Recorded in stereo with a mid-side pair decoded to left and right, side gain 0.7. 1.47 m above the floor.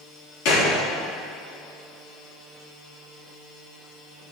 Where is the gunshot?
65° left, 4 m.